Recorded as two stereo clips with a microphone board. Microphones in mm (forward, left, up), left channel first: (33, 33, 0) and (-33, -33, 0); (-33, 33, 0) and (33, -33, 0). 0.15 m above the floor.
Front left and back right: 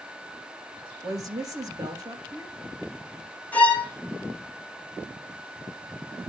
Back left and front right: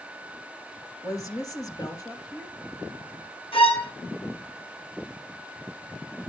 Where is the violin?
120° left, 2.5 m.